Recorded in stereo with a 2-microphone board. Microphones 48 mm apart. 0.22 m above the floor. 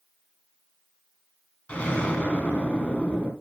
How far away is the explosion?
About 3 m.